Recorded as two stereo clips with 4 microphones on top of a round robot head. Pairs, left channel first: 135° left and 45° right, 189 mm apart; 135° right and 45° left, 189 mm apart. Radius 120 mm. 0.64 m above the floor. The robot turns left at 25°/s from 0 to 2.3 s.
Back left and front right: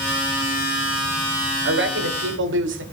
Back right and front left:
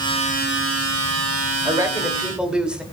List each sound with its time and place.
1.6 s a woman speaking: 25° right, 2.5 m; by 2.8 s 40° right, 2.5 m